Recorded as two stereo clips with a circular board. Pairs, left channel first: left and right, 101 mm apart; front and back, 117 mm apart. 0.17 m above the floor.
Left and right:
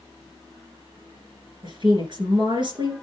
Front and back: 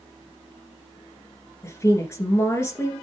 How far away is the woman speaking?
About 2.5 m.